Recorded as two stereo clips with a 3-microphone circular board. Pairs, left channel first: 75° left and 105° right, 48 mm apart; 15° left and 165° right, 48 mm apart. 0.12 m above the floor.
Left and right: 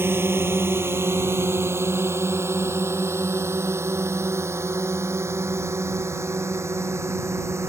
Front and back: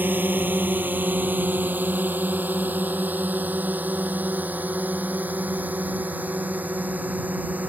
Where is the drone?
125° right; by 7.7 s 110° right.